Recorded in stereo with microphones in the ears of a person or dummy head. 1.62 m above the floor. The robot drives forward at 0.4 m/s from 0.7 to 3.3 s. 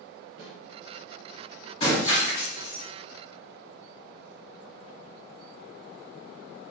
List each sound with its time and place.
0.4 s a snare drum: 65° right (ahead or behind), 1.1 m
1.8 s breaking glass: 35° left (ahead or behind), 1.4 m; by 2.8 s 25° left (ahead or behind), 1.7 m